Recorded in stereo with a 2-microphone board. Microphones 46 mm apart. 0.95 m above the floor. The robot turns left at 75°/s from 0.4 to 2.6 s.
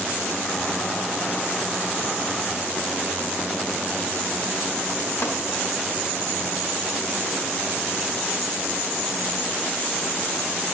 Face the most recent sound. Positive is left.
turn(degrees=65)  # may be behind; listen again after turning